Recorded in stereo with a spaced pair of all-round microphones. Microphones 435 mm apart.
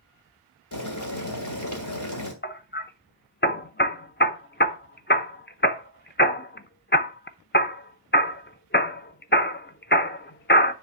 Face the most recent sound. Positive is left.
turn(degrees=25)  # may be behind; listen again after turning